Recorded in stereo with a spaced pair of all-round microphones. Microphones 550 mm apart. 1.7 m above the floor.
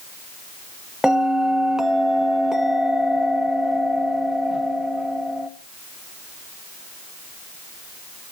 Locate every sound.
1.0 s a bell: centre (ahead or behind), 1.5 m